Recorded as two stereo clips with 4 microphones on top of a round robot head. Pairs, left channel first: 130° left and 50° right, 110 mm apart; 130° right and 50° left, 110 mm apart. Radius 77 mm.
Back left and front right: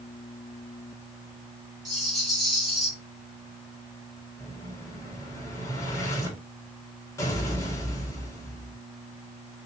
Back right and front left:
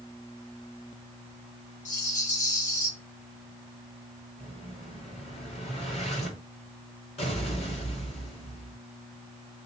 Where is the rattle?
135° right, 1.8 m.